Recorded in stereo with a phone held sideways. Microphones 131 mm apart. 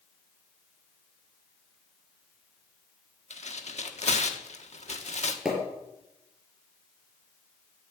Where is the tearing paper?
60° left (ahead or behind), 1.3 m.